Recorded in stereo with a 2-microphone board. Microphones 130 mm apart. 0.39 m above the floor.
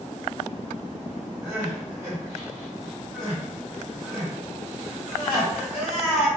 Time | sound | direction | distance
1.4 | crying | 10° right (ahead or behind) | 1.9 m